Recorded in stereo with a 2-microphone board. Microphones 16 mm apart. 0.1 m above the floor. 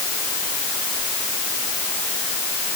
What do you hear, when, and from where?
Only background noise.